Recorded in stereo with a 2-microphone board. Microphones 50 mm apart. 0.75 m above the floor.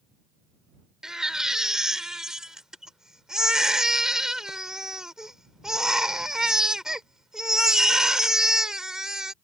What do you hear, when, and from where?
1.0 s a baby crying: 10° right (ahead or behind)